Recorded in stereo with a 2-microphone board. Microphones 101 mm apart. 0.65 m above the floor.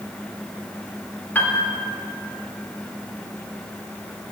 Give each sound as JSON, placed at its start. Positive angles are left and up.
{"t": 1.4, "sound": "a piano", "side_deg": 20, "distance_m": 1.1}